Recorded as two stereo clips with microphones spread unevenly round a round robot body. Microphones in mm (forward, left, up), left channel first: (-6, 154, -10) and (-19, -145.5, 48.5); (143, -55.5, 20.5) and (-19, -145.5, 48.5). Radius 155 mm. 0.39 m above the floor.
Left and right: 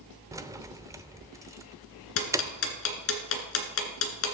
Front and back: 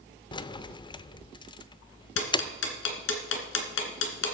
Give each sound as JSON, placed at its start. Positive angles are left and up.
{"t": 0.3, "sound": "keys jangling", "azimuth_deg": -5, "distance_m": 0.5}
{"t": 2.2, "sound": "ticking", "azimuth_deg": 40, "distance_m": 1.8}